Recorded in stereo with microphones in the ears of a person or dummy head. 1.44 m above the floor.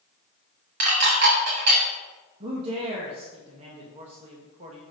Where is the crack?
I don't hear a crack.